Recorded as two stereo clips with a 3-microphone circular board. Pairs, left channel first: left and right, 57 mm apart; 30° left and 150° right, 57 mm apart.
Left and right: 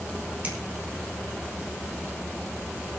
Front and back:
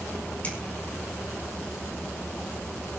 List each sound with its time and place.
0.4 s a finger snap: 30° right, 3 m